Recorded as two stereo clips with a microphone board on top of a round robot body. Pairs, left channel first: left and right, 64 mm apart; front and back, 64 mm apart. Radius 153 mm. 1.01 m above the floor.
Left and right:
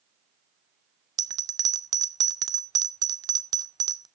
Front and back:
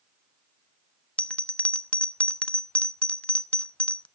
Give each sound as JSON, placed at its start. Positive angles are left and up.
{"t": 1.2, "sound": "a bell", "azimuth_deg": -75, "distance_m": 0.6}